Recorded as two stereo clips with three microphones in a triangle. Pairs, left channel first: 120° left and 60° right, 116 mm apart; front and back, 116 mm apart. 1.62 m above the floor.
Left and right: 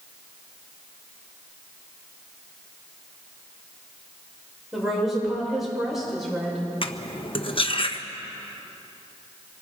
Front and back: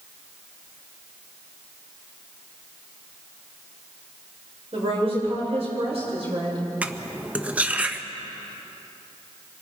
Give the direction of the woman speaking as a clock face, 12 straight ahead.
5 o'clock.